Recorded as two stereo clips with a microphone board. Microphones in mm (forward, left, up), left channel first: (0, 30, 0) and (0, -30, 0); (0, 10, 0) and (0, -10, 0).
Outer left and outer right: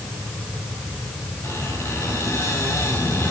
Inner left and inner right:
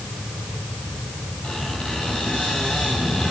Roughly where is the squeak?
Left.